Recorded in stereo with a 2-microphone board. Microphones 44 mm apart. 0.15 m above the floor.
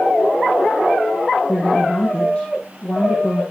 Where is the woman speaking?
25° left (ahead or behind), 6.5 m.